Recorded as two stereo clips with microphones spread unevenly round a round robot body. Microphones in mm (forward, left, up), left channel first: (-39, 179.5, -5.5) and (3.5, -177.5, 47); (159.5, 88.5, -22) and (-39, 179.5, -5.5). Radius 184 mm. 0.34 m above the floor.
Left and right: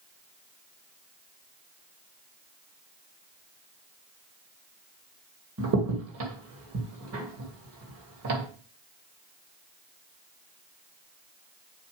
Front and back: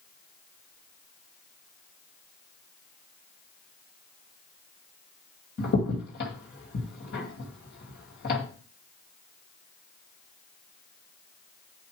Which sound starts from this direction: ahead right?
A crack, at 5.6 s.